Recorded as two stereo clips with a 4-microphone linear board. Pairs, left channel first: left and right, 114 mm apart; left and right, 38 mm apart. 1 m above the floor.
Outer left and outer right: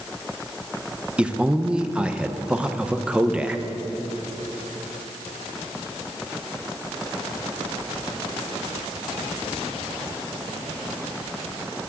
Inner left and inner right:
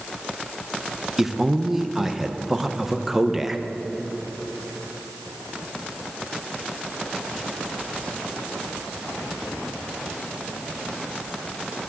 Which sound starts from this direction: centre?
A man speaking, at 1.2 s.